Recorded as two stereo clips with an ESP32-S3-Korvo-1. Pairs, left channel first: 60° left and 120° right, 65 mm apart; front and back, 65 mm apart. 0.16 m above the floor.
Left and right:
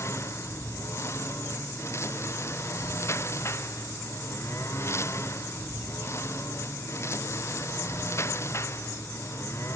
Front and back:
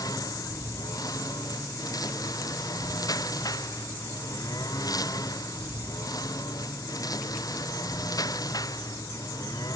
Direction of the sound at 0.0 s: 15° left.